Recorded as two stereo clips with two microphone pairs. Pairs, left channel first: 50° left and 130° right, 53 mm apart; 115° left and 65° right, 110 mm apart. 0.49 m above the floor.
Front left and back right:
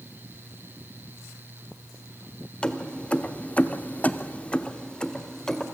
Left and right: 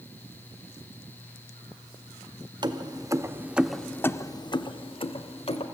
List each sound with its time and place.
2.6 s keys jangling: 20° right, 1.1 m; by 5.7 s 130° left, 1.4 m